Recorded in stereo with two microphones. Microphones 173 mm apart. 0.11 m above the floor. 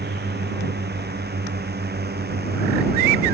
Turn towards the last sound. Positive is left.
turn(degrees=-70)  # may be behind; listen again after turning